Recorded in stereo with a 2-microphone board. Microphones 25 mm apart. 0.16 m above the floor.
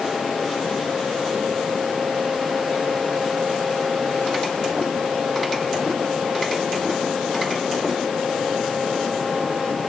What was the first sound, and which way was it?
Only background noise.